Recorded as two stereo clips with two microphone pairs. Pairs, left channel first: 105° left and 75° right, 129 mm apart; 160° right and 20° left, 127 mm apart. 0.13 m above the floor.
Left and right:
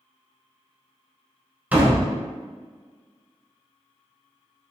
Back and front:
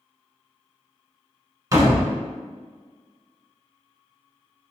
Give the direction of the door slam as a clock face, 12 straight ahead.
12 o'clock.